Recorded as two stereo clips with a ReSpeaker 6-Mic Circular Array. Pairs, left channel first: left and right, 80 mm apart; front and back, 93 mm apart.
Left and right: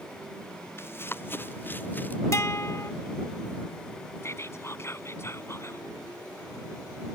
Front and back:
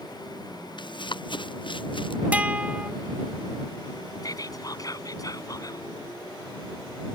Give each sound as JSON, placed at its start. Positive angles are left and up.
{"t": 0.8, "sound": "running footsteps", "azimuth_deg": 30}
{"t": 2.3, "sound": "a guitar", "azimuth_deg": 115}
{"t": 4.2, "sound": "whispering", "azimuth_deg": 40}